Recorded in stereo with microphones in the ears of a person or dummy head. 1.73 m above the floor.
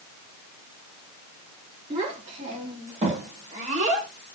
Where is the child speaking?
35° right (ahead or behind), 3.5 m; by 4.1 s 40° right (ahead or behind), 1.9 m.